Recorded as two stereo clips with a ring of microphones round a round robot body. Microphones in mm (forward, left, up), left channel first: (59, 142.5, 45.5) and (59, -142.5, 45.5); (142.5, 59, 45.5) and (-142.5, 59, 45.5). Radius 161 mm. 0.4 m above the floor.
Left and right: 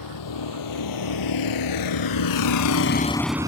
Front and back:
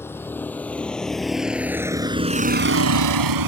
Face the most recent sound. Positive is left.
turn(degrees=-165)